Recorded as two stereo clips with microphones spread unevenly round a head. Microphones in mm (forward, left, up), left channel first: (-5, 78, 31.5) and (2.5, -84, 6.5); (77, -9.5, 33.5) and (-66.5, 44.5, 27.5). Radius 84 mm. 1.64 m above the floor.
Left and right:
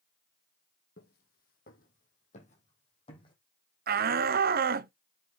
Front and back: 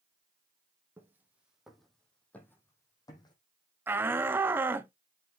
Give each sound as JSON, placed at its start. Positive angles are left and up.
{"t": 1.0, "sound": "footsteps", "azimuth_deg": 85, "distance_m": 3.5}
{"t": 3.9, "sound": "a shout", "azimuth_deg": -125, "distance_m": 0.9}